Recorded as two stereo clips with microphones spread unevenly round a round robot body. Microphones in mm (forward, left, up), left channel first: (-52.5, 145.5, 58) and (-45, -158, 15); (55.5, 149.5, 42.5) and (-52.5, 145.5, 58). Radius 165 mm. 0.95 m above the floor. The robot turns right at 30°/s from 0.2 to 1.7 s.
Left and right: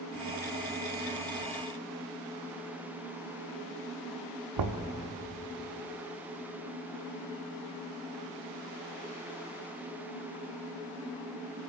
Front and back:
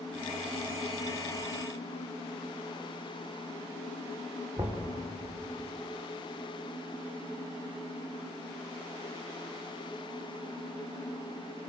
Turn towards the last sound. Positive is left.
turn(degrees=-105)